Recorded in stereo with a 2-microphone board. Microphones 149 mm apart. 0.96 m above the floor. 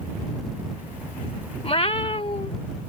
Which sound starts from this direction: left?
A cat meowing, at 1.6 s.